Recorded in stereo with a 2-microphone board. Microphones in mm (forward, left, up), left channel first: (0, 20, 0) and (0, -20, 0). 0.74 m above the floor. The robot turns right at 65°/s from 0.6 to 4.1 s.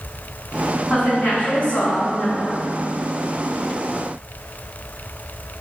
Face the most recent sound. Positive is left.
turn(degrees=-135)